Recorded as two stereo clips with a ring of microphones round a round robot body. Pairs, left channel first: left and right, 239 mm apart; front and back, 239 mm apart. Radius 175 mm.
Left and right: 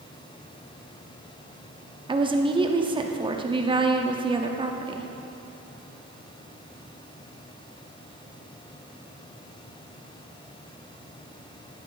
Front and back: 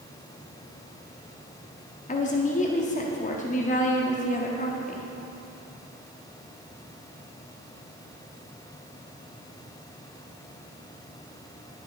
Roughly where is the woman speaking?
Ahead right.